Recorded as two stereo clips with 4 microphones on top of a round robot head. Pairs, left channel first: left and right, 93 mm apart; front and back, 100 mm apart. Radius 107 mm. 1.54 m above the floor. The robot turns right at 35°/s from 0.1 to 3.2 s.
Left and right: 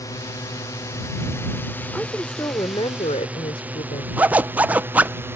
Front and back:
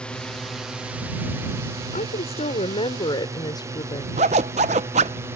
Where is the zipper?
160° right.